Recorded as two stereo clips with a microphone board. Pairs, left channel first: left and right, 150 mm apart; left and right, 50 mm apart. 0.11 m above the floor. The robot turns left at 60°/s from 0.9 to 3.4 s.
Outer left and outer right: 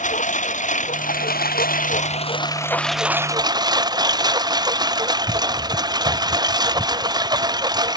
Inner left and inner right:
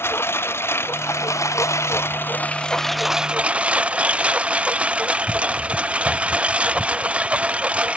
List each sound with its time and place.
0.0 s a lawn mower: 125° left; by 8.0 s 25° right